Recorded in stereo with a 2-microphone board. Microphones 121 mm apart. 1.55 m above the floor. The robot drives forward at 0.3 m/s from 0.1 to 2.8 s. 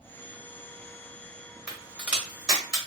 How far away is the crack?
About 1.1 m.